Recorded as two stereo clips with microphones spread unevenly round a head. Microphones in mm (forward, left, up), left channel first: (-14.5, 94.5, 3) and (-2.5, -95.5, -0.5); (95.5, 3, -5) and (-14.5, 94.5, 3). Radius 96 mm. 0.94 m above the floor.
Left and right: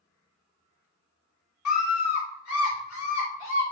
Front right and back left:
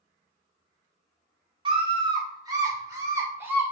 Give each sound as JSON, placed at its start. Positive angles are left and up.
{"t": 1.6, "sound": "a scream", "azimuth_deg": 85, "distance_m": 3.0}